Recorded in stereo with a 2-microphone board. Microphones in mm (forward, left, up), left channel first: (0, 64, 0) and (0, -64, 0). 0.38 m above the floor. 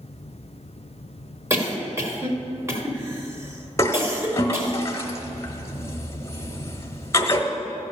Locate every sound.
1.5 s a cough: 20° right (ahead or behind), 1.7 m
3.8 s a toilet flushing: 25° left (ahead or behind), 1.1 m